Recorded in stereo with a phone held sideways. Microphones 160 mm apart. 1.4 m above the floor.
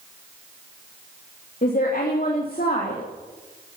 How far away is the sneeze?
No sneeze in this recording.